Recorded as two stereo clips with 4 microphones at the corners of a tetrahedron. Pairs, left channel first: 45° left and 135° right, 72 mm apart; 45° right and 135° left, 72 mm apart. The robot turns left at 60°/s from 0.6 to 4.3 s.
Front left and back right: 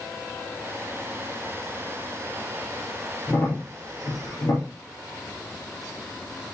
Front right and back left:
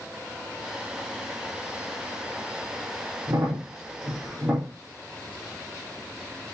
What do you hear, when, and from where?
3.3 s a crack: 115° left, 5 m; by 4.7 s 55° left, 5 m